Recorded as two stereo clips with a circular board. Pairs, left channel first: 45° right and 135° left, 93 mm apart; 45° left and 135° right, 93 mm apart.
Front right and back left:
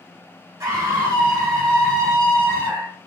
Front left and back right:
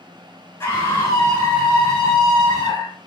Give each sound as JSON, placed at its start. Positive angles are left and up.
{"t": 0.6, "sound": "a scream", "azimuth_deg": 95, "distance_m": 1.9}